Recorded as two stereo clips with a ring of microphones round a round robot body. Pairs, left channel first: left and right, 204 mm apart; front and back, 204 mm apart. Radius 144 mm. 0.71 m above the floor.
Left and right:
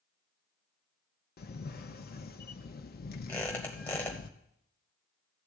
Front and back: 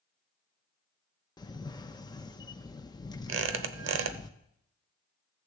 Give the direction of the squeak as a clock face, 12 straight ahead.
6 o'clock.